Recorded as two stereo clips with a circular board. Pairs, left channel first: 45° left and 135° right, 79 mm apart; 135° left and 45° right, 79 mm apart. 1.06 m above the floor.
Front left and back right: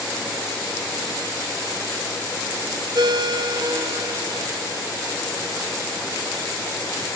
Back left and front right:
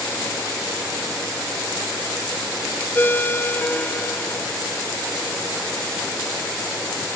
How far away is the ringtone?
About 0.7 m.